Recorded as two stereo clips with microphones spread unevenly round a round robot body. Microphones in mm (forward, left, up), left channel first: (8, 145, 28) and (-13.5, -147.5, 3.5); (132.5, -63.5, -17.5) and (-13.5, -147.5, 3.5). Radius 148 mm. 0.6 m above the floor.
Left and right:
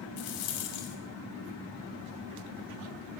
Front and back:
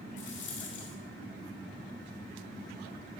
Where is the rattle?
65° left, 2.0 m.